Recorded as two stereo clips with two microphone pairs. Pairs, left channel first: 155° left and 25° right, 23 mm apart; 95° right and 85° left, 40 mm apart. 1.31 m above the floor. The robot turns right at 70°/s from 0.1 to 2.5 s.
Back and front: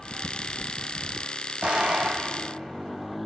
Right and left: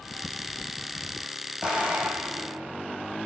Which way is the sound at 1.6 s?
10° left.